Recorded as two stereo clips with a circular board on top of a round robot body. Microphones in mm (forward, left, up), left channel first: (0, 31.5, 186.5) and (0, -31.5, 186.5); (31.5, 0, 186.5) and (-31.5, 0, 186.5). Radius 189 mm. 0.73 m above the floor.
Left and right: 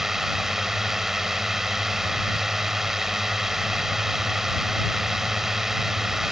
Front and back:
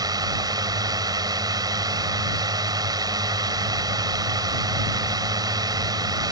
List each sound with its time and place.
0.0 s a drone: 175° right